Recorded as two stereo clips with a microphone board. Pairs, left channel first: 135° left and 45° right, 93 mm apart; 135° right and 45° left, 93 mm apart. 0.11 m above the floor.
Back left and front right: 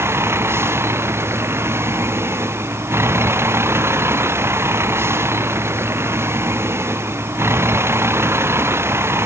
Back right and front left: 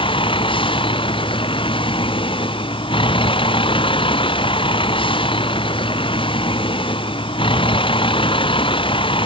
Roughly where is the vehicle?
Right.